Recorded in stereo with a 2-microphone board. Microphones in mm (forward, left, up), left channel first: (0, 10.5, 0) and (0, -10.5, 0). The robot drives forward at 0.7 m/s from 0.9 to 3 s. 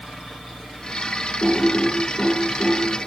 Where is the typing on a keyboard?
50° left (ahead or behind), 6.5 m; by 2.8 s 55° left (ahead or behind), 6 m.